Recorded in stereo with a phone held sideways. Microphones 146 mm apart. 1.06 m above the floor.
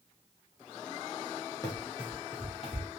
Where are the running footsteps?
25° left (ahead or behind), 1.4 m; by 2.9 s 50° left (ahead or behind), 1.9 m.